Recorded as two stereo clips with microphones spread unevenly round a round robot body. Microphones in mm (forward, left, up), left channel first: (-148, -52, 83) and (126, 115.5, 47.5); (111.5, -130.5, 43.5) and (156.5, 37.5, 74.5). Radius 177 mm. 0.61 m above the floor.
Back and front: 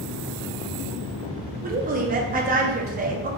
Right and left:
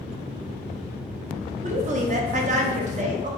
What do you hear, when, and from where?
1.6 s a woman speaking: 50° left, 0.7 m